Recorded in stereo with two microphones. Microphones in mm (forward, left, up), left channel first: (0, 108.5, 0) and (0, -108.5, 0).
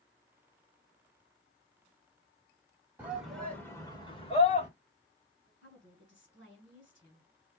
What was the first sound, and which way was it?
A shout, 5° right (ahead or behind).